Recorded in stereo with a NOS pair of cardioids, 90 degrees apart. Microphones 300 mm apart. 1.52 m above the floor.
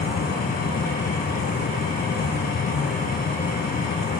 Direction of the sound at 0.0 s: 30° left.